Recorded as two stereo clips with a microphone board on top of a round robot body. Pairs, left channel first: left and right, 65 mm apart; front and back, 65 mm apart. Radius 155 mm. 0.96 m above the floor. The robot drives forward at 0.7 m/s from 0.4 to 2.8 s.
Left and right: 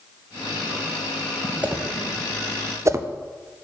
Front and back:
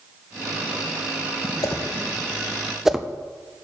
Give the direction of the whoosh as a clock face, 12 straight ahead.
1 o'clock.